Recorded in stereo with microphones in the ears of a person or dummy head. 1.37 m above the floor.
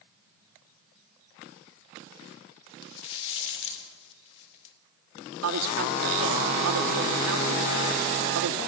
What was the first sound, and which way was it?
A rattle, 65° left (ahead or behind).